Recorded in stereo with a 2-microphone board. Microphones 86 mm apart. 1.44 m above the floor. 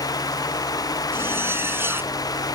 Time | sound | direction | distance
1.1 | a zipper | 25° right (ahead or behind) | ?